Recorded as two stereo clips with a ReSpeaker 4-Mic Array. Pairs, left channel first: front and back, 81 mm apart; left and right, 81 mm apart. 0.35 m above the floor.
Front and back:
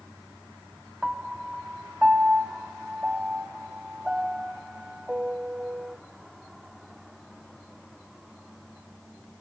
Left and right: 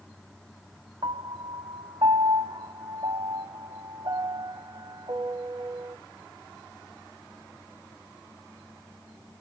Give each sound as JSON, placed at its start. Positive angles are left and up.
{"t": 1.0, "sound": "a piano", "azimuth_deg": -100, "distance_m": 0.6}